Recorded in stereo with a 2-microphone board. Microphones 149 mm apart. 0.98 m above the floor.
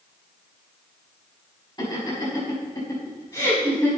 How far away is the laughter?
About 6 m.